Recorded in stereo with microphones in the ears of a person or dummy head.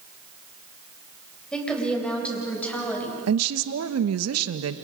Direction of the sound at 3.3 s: 80° right.